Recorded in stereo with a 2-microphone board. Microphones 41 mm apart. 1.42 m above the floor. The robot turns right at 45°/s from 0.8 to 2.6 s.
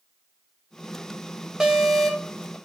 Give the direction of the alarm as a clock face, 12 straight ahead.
1 o'clock.